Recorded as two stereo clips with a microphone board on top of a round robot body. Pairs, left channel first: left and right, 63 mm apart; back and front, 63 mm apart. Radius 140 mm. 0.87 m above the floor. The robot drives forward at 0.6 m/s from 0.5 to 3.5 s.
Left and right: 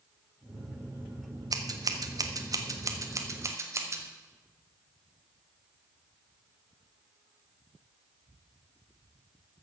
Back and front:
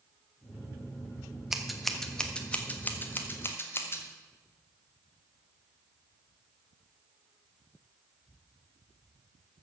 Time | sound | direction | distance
1.5 | scissors | 85° right | 1.4 m